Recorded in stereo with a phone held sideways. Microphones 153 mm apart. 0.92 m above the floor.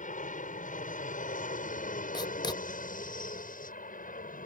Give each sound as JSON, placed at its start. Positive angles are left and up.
{"t": 0.0, "sound": "an aircraft", "side_deg": 60}
{"t": 2.1, "sound": "writing", "side_deg": 30}